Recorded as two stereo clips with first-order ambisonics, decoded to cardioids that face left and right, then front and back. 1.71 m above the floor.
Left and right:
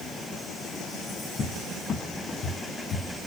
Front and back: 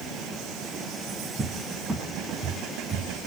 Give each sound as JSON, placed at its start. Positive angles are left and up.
{"t": 1.4, "sound": "a cupboard door", "azimuth_deg": 110, "distance_m": 0.6}